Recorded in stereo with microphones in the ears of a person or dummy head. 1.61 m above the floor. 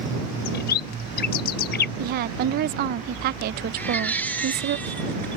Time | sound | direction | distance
0.5 | a bird | 55° left (ahead or behind) | ?
2.0 | a woman speaking | 55° right (ahead or behind) | ?
3.8 | a baby crying | 10° left (ahead or behind) | ?